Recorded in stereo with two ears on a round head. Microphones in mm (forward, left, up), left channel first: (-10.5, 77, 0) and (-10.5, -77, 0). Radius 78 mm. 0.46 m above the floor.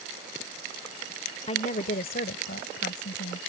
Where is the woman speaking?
35° left (ahead or behind); by 3.4 s 70° left (ahead or behind).